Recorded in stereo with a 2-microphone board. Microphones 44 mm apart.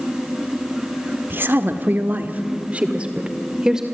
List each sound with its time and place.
1.3 s a woman speaking: 50° right (ahead or behind), 1.6 m; by 3.9 s 15° right (ahead or behind), 2 m